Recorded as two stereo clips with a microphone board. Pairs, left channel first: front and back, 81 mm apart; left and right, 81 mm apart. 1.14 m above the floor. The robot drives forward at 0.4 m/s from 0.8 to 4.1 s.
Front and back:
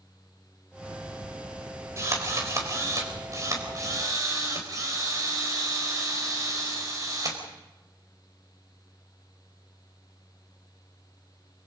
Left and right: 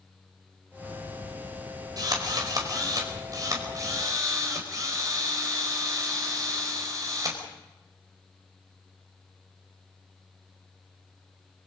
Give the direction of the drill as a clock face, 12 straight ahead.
4 o'clock.